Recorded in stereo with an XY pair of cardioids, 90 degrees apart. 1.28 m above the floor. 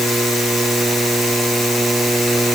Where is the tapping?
I don't hear tapping.